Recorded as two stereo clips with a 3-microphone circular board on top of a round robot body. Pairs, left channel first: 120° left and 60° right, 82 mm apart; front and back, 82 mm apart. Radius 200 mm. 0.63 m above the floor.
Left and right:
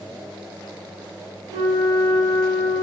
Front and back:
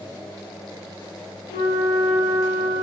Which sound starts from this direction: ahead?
A flute, at 1.5 s.